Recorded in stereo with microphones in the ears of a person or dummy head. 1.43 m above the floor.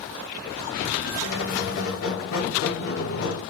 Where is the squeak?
75° left (ahead or behind), 2 m.